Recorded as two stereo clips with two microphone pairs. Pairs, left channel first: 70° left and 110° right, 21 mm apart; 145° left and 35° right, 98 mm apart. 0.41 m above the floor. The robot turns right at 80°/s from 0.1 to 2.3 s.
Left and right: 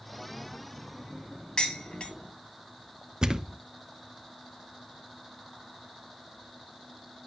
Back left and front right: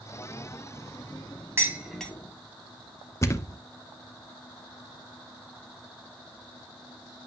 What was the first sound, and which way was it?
Dishes clattering, 30° left.